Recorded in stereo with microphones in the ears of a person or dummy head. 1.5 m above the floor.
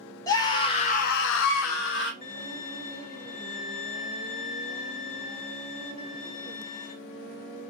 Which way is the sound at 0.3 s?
20° left (ahead or behind).